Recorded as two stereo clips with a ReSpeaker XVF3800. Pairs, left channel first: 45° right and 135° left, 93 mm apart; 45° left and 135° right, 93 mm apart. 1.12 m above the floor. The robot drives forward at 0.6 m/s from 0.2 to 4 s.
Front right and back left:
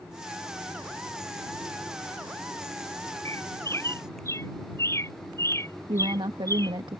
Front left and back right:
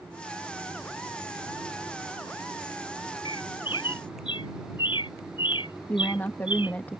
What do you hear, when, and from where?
3.2 s a bird: 15° left
5.9 s a woman speaking: 110° left